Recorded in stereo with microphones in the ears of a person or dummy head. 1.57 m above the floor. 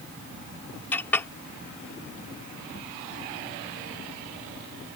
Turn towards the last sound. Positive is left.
turn(degrees=15)  # may be behind; listen again after turning